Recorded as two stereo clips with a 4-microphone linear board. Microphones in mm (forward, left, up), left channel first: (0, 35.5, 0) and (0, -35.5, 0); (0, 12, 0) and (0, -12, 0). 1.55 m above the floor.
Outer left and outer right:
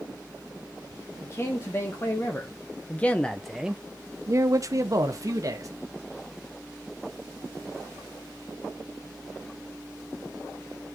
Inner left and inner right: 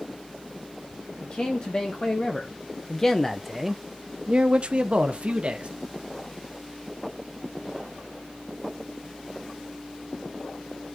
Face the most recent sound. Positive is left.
turn(degrees=-50)  # may be behind; listen again after turning